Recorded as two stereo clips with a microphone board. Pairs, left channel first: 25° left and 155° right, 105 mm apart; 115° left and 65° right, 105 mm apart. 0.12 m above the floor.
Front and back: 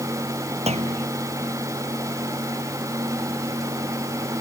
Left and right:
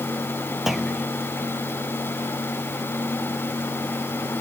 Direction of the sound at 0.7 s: 155° right.